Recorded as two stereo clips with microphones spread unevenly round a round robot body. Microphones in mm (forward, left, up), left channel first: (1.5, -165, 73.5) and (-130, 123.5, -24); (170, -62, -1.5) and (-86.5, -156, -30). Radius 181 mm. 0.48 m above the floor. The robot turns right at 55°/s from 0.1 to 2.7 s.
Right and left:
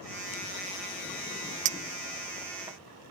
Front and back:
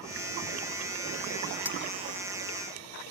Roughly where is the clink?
Left.